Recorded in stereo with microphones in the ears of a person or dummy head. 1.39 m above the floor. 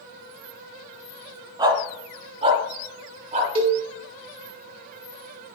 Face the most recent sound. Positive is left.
turn(degrees=-35)  # may be behind; listen again after turning